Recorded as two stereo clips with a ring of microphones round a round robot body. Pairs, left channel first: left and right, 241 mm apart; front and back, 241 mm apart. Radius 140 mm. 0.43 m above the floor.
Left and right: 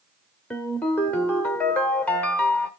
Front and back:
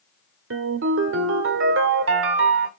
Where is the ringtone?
175° left, 1.3 m.